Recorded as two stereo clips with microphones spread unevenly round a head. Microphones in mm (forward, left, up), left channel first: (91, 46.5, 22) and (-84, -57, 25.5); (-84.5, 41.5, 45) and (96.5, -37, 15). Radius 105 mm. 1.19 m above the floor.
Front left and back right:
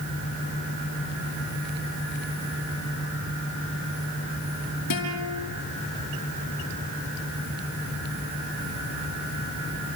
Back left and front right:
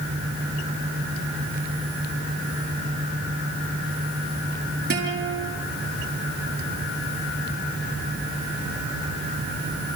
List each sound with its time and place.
4.9 s a guitar: 20° left, 5 m